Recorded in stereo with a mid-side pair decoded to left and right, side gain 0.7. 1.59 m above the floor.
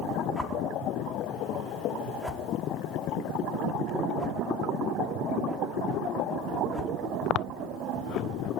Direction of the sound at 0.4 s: Straight ahead.